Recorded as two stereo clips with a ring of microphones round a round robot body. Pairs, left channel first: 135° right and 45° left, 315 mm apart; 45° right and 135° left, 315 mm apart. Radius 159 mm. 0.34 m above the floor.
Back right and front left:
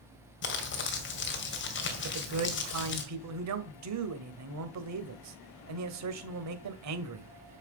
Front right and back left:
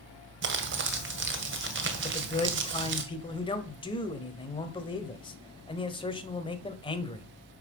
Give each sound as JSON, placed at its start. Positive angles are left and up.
{"t": 0.4, "sound": "crumpling", "azimuth_deg": 180, "distance_m": 2.0}
{"t": 2.0, "sound": "a man speaking", "azimuth_deg": 25, "distance_m": 1.5}